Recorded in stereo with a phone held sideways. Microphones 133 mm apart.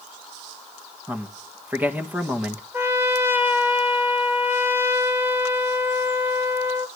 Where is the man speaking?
15° right (ahead or behind), 1.8 m.